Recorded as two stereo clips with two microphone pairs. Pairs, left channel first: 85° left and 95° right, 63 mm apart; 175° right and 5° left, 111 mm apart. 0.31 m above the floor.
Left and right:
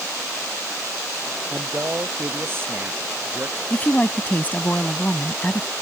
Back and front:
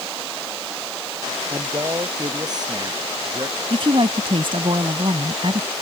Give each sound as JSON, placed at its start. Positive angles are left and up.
{"t": 1.5, "sound": "a man speaking", "azimuth_deg": -45}
{"t": 3.7, "sound": "a woman speaking", "azimuth_deg": 25}